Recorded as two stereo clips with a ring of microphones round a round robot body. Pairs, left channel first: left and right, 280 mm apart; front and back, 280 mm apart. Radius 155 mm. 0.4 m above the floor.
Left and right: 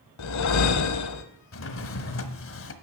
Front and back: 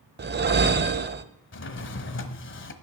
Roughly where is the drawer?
Ahead left.